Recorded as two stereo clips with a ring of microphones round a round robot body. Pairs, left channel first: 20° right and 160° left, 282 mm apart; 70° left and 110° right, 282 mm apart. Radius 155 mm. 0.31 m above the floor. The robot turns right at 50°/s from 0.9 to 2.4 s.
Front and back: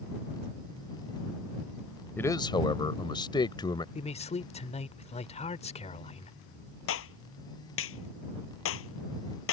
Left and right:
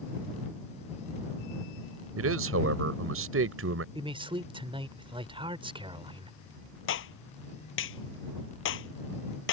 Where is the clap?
20° left.